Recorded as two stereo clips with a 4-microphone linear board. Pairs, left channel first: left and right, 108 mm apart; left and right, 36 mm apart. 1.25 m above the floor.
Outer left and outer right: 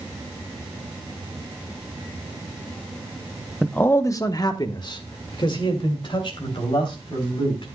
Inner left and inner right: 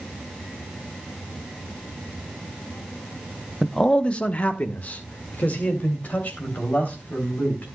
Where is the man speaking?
5° left (ahead or behind), 0.5 m; by 7.7 s 55° left (ahead or behind), 4 m.